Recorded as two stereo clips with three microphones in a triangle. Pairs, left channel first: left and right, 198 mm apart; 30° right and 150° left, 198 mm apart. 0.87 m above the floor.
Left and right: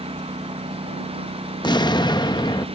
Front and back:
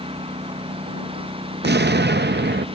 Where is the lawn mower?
150° right.